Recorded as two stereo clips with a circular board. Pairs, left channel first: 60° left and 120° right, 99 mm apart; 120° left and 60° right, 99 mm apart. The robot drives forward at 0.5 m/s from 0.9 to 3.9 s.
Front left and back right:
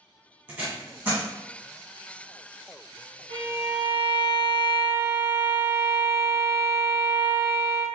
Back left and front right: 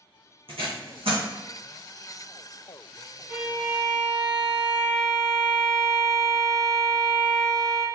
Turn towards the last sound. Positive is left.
turn(degrees=-140)